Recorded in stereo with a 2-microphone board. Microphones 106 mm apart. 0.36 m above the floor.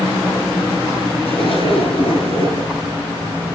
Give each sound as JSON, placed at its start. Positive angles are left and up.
{"t": 1.2, "sound": "a zipper", "side_deg": 65, "distance_m": 3.5}